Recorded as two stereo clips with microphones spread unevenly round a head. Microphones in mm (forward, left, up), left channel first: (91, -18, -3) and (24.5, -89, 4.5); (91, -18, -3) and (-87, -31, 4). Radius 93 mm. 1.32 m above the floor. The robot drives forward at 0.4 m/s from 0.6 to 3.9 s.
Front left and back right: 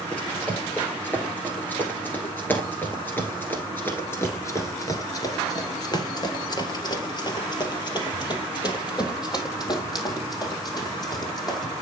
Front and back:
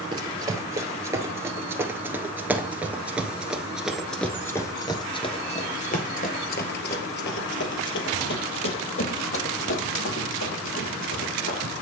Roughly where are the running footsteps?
Behind left.